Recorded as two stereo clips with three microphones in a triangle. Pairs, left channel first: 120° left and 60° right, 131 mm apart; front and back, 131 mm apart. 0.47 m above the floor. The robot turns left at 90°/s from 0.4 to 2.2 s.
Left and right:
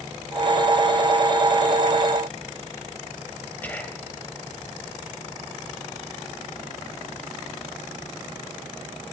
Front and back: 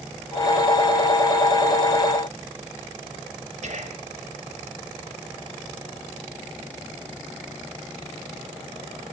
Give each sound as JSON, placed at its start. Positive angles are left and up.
{"t": 3.6, "sound": "whispering", "azimuth_deg": -165, "distance_m": 2.5}